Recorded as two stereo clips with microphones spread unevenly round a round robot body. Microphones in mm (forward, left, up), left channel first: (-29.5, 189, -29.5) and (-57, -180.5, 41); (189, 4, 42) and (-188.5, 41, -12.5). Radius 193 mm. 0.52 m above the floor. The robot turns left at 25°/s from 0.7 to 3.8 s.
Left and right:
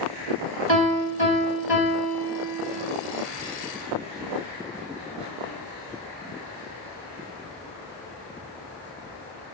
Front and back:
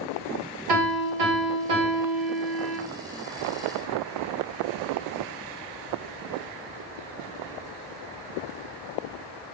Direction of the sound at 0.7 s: 155° right.